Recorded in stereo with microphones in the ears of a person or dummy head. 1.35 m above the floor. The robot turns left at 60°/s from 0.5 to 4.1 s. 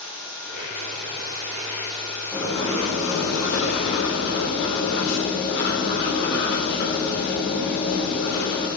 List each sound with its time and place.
0.0 s running water: 120° right, 2.5 m; by 8.8 s 25° left, 2.5 m
2.3 s writing: 165° left, 3 m; by 8.7 s 55° left, 3 m